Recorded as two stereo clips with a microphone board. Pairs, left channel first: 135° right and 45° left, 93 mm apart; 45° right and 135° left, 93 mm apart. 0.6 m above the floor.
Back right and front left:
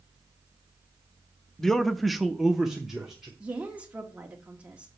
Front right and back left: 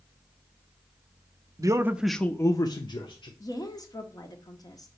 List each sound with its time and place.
1.6 s a man speaking: 145° left, 0.7 m; by 3.3 s 40° right, 1.2 m
3.4 s a woman speaking: 25° right, 1.4 m